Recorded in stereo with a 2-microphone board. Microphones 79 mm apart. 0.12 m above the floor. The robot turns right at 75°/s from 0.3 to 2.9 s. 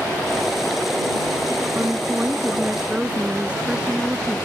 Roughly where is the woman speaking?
Right.